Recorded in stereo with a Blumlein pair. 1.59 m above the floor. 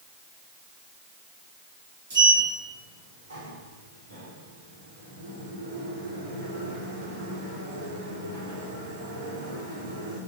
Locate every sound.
2.1 s a sliding door: 60° right, 3.5 m